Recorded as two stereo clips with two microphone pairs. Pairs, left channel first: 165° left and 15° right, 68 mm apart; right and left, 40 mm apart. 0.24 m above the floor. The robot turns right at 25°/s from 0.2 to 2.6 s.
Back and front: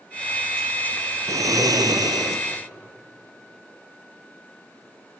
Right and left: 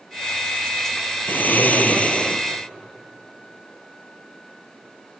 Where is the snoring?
50° right, 1.2 m; by 2.4 s 20° right, 1.2 m.